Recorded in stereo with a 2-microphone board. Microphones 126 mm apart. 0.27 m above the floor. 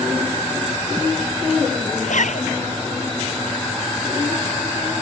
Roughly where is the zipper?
Left.